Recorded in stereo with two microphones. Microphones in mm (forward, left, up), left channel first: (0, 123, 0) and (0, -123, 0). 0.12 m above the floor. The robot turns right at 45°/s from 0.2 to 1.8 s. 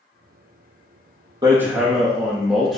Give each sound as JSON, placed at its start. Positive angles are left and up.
{"t": 1.4, "sound": "hammering", "side_deg": -15, "distance_m": 3.5}